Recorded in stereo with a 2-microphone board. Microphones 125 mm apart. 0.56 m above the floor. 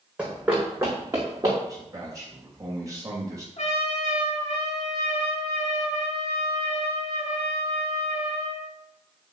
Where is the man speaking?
30° right (ahead or behind), 2.5 m.